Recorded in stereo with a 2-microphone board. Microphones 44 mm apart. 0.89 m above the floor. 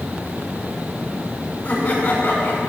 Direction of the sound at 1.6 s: 35° left (ahead or behind).